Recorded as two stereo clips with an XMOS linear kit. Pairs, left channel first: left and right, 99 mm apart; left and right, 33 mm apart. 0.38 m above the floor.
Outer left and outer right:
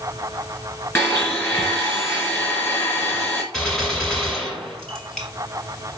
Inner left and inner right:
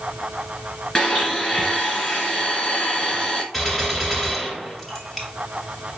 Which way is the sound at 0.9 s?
25° left (ahead or behind).